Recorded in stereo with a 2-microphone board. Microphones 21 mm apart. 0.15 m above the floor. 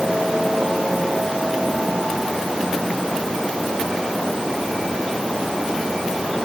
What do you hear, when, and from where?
Only background noise.